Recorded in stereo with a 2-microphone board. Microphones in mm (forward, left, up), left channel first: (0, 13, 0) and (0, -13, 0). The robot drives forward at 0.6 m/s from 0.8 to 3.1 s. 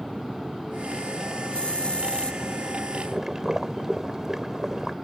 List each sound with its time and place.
1.5 s a hiss: 55° left (ahead or behind); by 2.4 s 50° left (ahead or behind)
3.0 s boiling: 20° right (ahead or behind)